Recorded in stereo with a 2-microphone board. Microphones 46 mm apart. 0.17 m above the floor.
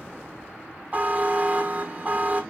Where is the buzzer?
35° right (ahead or behind), 1.4 m.